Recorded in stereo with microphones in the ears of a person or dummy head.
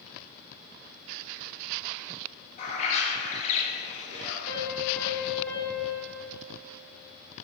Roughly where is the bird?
Left.